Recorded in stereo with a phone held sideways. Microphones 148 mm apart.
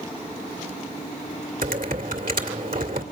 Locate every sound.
1.6 s typing on a keyboard: 80° right, 1.9 m